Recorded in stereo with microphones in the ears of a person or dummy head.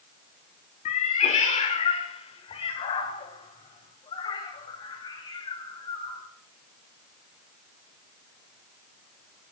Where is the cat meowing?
45° left (ahead or behind), 1.7 m; by 6.2 s 25° left (ahead or behind), 4 m.